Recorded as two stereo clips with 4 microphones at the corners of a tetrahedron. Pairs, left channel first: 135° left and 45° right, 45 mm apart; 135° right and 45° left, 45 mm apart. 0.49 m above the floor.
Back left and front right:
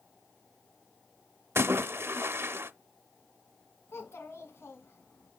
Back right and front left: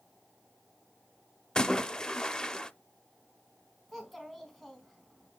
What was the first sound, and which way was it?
A splash, 65° right.